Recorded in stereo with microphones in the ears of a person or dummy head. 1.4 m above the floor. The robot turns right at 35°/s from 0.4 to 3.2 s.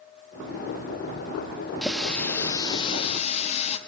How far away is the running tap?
About 1.3 m.